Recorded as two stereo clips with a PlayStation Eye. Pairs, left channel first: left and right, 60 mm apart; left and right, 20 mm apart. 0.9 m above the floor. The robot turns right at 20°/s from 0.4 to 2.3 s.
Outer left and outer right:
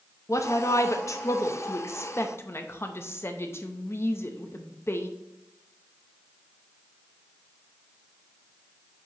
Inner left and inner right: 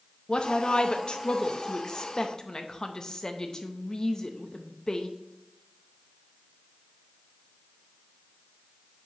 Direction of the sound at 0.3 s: 60° left (ahead or behind).